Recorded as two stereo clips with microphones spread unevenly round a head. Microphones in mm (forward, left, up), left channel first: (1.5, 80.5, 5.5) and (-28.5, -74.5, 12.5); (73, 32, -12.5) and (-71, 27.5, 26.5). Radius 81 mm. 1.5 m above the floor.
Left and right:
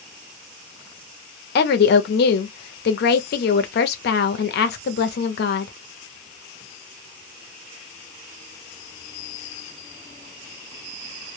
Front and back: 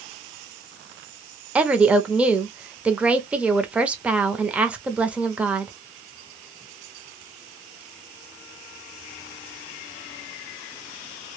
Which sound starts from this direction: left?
A woman speaking, at 1.6 s.